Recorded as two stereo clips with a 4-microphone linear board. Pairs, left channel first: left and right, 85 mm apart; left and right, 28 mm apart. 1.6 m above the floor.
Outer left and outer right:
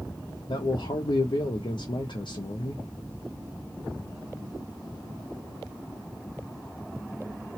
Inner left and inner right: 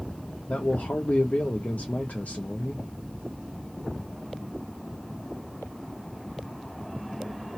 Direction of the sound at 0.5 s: 75° left (ahead or behind).